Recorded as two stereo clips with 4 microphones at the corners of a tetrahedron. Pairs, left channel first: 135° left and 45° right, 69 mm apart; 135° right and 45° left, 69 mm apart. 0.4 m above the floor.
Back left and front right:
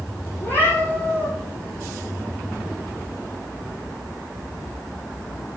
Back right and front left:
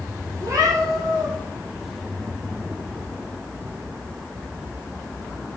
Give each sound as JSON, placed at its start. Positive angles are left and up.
{"t": 0.4, "sound": "a cat meowing", "azimuth_deg": 75, "distance_m": 6.5}